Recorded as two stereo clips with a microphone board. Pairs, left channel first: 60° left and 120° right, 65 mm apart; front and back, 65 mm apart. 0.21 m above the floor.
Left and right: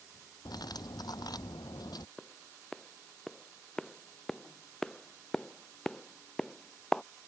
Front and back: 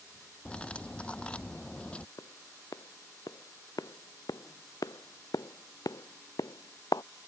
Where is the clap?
25° right.